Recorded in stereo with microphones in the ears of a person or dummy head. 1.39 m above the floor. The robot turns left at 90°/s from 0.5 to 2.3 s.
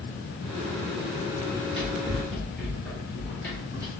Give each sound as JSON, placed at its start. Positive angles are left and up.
{"t": 1.5, "sound": "running footsteps", "side_deg": 5, "distance_m": 1.5}